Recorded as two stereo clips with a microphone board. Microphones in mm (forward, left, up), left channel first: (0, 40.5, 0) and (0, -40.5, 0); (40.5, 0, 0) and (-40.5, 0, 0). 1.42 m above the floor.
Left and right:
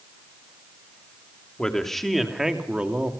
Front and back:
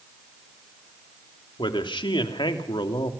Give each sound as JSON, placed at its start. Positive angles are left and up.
{"t": 1.6, "sound": "a man speaking", "azimuth_deg": 10, "distance_m": 3.0}